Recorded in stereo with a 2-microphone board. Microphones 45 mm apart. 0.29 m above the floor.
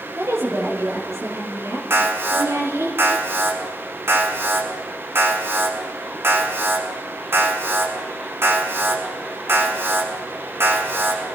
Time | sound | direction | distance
0.2 | a woman speaking | 80° right | 7 m
1.9 | an alarm | 60° right (ahead or behind) | 5 m